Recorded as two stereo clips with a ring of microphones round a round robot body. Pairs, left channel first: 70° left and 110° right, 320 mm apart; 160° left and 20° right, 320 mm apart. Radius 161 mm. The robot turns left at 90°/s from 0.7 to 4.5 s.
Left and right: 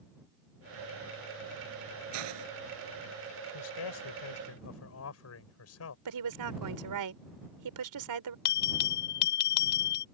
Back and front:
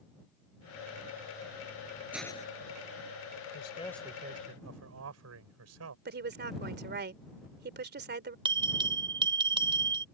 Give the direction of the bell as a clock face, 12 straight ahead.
10 o'clock.